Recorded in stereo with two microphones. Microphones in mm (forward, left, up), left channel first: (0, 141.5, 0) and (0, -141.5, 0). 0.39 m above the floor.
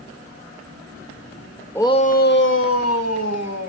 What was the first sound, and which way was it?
A shout, 10° left (ahead or behind).